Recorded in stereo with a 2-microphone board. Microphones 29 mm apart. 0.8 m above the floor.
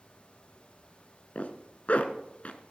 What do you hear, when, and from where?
1.4 s a zipper: 50° left (ahead or behind), 1.4 m